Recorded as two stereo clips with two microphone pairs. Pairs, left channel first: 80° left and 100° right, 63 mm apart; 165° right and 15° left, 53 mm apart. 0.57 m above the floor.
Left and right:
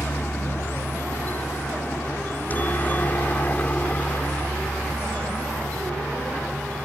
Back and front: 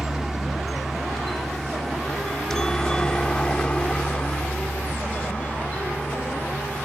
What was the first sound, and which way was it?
A helicopter, 95° left.